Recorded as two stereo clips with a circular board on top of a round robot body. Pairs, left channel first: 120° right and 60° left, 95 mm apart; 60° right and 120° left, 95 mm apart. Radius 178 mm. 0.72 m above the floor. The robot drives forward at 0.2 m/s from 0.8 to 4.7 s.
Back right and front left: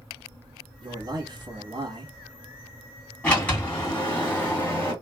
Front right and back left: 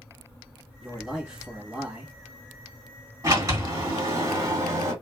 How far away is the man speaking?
About 1.4 m.